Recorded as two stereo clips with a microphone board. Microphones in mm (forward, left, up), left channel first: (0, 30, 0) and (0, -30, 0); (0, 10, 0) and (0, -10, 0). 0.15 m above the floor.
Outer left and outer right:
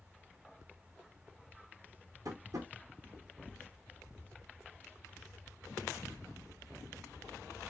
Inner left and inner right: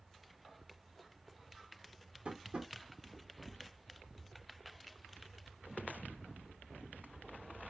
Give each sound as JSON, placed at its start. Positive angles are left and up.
{"t": 2.2, "sound": "tapping", "side_deg": -75, "distance_m": 1.5}